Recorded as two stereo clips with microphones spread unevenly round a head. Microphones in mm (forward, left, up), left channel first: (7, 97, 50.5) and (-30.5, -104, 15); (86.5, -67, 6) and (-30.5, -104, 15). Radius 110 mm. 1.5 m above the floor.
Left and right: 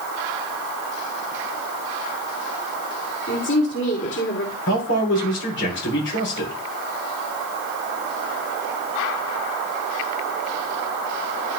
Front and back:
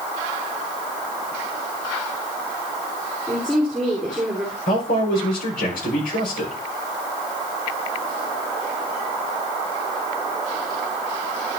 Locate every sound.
3.3 s a woman speaking: 110° left, 3 m
4.7 s a man speaking: 40° left, 5.5 m